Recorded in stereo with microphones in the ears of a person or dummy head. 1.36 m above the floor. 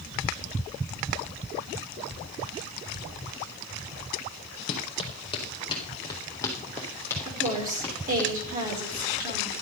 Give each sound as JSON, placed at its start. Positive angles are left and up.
{"t": 4.7, "sound": "running footsteps", "side_deg": 40, "distance_m": 2.5}
{"t": 7.2, "sound": "a woman speaking", "side_deg": -45, "distance_m": 4.5}